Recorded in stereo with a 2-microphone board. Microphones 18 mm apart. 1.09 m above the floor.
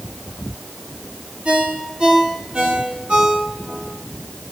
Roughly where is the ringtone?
Right.